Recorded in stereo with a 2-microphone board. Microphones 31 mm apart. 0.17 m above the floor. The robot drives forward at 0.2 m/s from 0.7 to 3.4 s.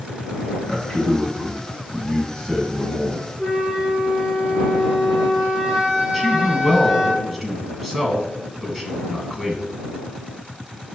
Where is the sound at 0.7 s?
20° left (ahead or behind), 1.4 m; by 3.3 s 25° left (ahead or behind), 1.1 m.